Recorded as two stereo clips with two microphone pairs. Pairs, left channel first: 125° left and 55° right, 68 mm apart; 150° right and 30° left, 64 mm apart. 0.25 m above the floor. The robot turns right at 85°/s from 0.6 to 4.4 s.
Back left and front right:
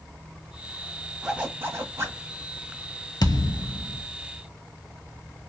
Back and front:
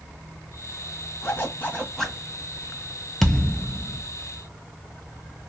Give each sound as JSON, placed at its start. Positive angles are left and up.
{"t": 1.2, "sound": "a zipper", "azimuth_deg": -135, "distance_m": 1.2}
{"t": 3.2, "sound": "a thud", "azimuth_deg": 120, "distance_m": 0.7}